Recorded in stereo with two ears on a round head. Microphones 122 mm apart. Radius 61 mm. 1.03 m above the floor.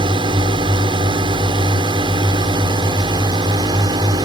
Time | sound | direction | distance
0.0 | a drone | 35° right (ahead or behind) | ?